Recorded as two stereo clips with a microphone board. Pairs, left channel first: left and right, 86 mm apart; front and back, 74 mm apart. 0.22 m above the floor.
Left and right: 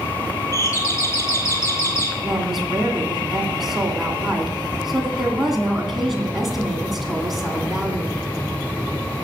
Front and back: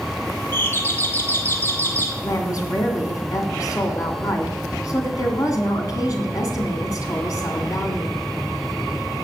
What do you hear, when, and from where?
0.5 s a doorbell: 50° left, 1.9 m
2.2 s a woman speaking: 5° right, 2 m